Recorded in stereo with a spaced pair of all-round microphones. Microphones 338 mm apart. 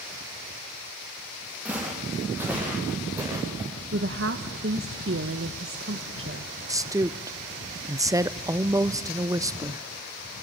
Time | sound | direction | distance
1.6 | footsteps | 5° right (ahead or behind) | 7.5 m
3.9 | a woman speaking | 40° right (ahead or behind) | 1.0 m
6.7 | a woman speaking | 10° right (ahead or behind) | 0.6 m